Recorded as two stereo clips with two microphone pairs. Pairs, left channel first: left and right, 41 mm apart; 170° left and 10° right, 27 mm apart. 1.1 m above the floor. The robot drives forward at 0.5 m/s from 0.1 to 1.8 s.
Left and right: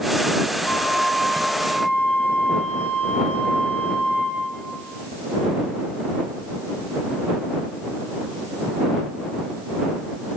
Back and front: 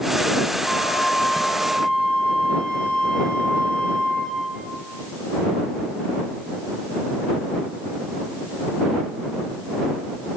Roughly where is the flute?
Behind left.